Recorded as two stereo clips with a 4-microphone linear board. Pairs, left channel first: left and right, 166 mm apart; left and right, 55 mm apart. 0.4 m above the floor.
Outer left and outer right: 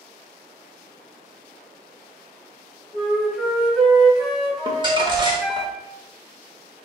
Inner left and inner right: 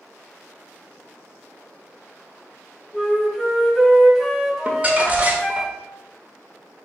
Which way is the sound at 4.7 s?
30° right (ahead or behind).